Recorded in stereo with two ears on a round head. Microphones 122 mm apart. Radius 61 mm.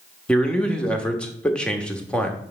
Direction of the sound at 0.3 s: 5° left (ahead or behind).